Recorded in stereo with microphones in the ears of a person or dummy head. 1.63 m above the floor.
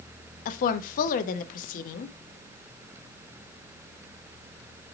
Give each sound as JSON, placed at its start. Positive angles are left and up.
{"t": 0.5, "sound": "a woman speaking", "side_deg": 50, "distance_m": 0.6}